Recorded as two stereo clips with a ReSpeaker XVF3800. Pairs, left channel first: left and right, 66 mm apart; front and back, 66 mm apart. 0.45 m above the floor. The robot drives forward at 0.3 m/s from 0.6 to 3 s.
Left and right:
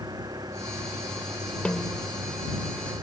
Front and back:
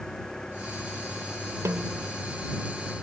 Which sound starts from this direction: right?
An engine running, at 0.0 s.